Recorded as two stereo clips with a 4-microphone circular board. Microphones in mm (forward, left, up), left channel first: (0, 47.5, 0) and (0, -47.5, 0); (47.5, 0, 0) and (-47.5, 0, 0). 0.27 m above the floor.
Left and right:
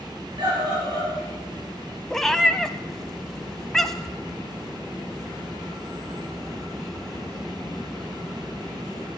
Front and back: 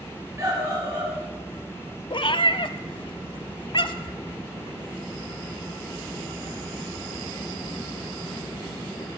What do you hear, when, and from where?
0.4 s a scream: 120° right, 4.5 m
2.1 s a cat meowing: 5° left, 0.7 m